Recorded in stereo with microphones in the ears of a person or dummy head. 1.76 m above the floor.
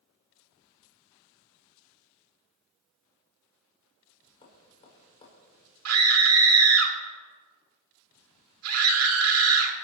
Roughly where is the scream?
Right.